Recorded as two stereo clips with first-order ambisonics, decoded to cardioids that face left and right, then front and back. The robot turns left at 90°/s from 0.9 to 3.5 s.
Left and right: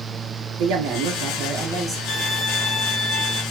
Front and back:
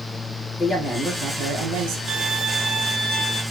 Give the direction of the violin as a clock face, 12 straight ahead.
7 o'clock.